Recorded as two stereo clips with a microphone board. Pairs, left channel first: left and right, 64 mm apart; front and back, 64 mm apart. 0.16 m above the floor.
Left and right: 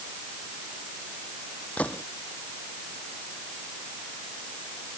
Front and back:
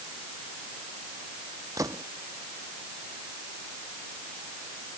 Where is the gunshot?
160° left.